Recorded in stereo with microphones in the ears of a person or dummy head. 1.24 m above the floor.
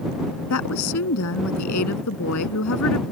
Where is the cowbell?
No cowbell in this recording.